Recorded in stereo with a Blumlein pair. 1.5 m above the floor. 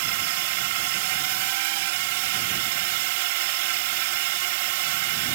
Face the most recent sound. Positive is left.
turn(degrees=-50)